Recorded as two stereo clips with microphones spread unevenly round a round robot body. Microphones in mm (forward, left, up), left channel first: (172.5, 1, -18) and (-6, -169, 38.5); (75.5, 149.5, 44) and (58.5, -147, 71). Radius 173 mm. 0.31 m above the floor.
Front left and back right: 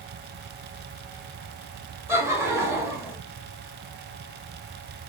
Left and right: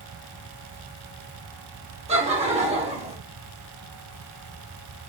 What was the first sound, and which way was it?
Laughter, 40° right.